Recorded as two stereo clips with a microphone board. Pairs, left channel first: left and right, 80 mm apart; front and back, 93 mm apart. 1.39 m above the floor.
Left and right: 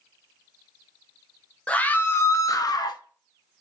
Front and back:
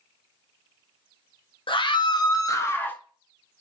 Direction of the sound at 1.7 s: 15° left.